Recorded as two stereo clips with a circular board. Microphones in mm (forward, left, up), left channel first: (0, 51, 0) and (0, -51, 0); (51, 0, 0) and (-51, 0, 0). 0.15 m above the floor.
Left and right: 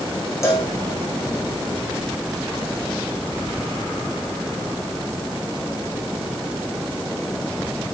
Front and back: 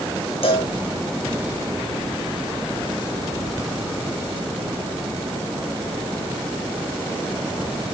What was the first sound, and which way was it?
A cowbell, 25° left.